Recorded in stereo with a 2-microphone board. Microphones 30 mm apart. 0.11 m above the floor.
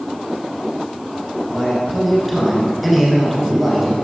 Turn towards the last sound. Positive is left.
turn(degrees=-5)  # may be behind; listen again after turning